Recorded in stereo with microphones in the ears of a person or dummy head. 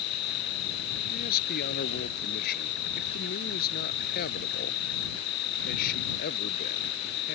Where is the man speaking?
50° left (ahead or behind).